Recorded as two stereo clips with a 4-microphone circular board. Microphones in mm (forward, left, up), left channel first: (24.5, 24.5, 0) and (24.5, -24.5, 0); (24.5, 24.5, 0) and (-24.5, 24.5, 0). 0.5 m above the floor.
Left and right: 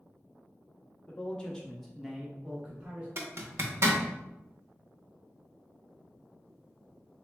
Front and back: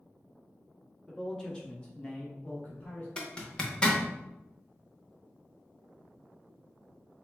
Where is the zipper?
65° right, 0.6 m.